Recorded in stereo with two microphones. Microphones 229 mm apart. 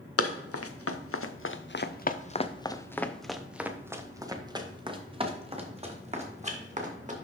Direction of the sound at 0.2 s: 85° left.